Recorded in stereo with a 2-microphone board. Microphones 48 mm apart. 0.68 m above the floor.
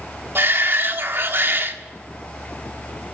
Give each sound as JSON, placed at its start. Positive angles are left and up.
{"t": 0.3, "sound": "a shout", "side_deg": -50, "distance_m": 1.5}